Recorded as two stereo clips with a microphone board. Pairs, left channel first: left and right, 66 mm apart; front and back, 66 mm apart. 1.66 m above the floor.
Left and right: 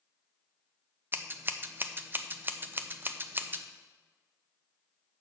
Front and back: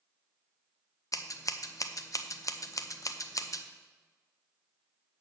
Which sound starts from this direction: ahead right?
Scissors, at 1.1 s.